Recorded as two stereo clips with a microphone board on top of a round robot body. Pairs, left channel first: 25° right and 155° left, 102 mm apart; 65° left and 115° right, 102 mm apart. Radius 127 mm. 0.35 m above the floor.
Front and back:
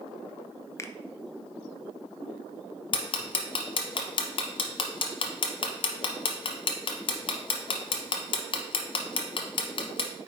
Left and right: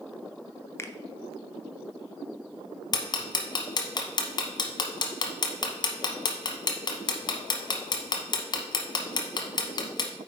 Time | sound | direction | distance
0.8 | a finger snap | 20° left | 0.7 m
2.9 | ticking | 20° left | 0.7 m